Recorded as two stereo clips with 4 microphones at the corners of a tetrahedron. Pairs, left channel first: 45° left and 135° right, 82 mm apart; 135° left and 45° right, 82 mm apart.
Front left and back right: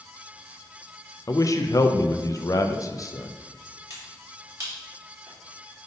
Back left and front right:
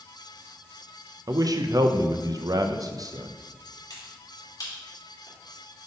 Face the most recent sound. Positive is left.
turn(degrees=175)